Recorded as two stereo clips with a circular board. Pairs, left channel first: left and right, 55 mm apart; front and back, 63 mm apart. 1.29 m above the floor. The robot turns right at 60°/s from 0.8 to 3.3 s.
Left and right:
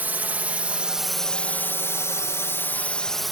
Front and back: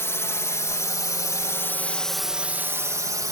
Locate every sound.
0.0 s a drone: 40° right; by 3.3 s 175° right